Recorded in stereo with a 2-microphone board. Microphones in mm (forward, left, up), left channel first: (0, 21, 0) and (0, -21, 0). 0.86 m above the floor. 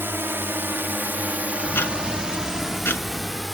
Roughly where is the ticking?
Left.